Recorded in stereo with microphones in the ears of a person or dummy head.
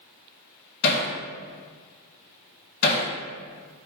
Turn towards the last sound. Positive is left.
turn(degrees=60)  # may be behind; listen again after turning